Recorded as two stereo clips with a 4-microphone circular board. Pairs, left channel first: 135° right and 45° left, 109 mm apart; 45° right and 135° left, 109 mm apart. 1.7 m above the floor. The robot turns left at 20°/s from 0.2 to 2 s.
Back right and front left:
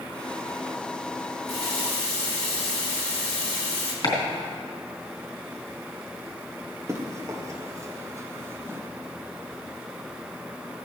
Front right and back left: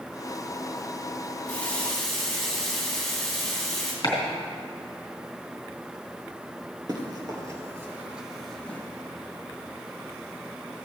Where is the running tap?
120° right, 2.5 m; by 3.9 s 130° right, 2.5 m.